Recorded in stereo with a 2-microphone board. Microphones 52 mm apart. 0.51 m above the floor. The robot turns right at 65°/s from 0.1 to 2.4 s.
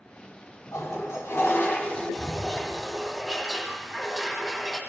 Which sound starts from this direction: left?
A toilet flushing, at 0.7 s.